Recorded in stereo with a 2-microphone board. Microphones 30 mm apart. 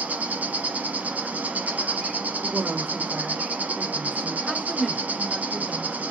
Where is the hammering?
No hammering in this recording.